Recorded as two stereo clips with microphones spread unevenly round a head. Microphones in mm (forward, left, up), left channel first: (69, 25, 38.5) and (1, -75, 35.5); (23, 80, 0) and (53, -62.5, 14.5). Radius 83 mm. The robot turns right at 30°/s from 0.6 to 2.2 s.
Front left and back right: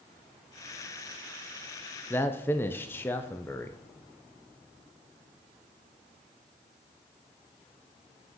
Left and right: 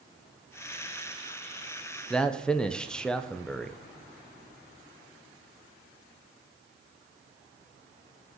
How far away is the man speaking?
About 0.6 m.